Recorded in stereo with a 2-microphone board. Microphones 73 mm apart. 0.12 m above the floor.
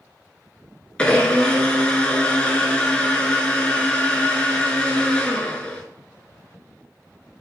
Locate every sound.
1.0 s a blender: 15° left (ahead or behind), 0.5 m